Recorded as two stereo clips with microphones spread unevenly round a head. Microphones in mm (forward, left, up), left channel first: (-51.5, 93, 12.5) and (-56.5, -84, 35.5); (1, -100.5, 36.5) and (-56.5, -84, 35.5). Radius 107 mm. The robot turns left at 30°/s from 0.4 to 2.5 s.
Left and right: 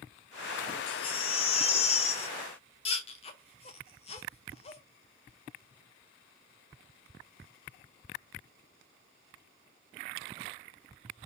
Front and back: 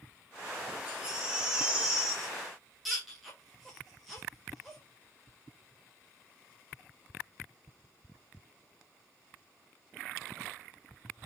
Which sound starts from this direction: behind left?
A baby crying, at 0.9 s.